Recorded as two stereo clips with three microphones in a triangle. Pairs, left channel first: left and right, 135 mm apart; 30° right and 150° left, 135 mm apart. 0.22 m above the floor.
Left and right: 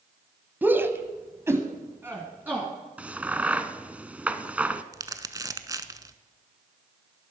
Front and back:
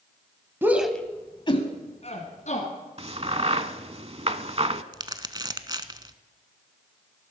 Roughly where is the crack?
Behind.